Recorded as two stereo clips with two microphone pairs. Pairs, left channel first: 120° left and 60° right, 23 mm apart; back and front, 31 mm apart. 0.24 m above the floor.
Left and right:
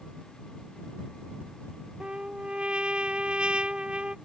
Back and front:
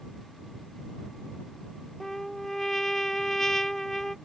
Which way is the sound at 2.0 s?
100° right.